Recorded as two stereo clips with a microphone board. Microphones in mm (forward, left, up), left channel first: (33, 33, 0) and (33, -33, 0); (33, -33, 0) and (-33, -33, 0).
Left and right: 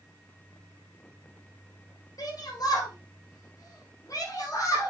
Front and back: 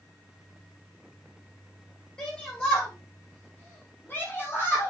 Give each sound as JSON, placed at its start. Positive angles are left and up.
{"t": 2.2, "sound": "a shout", "azimuth_deg": 70, "distance_m": 5.0}